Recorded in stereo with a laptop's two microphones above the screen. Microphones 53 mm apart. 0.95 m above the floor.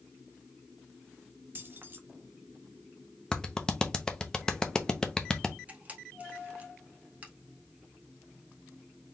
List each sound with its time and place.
1.6 s keys jangling: 40° right (ahead or behind), 1.0 m
3.3 s a clap: 15° left (ahead or behind), 0.8 m
5.7 s a camera shutter: 30° right (ahead or behind), 1.6 m